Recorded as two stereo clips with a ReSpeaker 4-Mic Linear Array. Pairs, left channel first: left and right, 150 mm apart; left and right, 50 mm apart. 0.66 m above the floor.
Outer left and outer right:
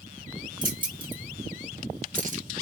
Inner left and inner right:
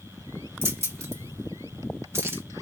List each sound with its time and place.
0.6 s keys jangling: 65° right (ahead or behind), 1.2 m; by 2.4 s 55° right (ahead or behind), 0.8 m